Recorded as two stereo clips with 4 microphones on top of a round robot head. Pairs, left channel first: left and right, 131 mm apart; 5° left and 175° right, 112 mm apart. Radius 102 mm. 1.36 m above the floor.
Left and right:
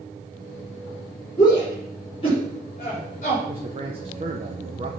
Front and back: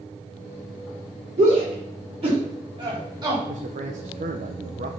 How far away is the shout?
About 4 m.